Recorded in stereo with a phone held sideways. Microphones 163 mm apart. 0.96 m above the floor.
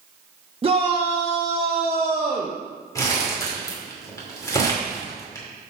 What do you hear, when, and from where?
0.6 s a shout: 35° right (ahead or behind), 0.9 m
3.0 s crumpling: 20° left (ahead or behind), 2 m